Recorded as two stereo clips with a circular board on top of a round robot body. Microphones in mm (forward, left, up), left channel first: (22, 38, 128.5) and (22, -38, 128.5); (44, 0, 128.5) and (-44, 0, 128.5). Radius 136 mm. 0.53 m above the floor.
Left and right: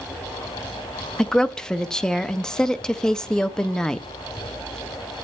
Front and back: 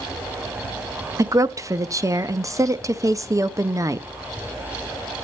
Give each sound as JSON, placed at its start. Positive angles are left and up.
{"t": 1.2, "sound": "a woman speaking", "azimuth_deg": 165, "distance_m": 0.7}